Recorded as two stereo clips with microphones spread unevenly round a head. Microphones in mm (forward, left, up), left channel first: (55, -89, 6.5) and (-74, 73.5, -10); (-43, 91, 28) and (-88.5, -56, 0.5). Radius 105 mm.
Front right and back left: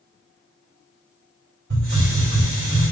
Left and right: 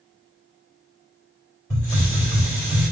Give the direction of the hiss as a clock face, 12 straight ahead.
9 o'clock.